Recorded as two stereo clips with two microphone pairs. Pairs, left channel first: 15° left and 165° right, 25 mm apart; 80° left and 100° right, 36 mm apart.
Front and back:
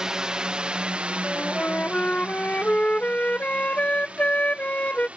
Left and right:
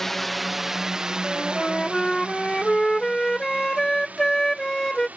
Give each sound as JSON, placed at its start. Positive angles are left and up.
{"t": 0.0, "sound": "a drone", "azimuth_deg": 155}
{"t": 1.2, "sound": "a flute", "azimuth_deg": 0}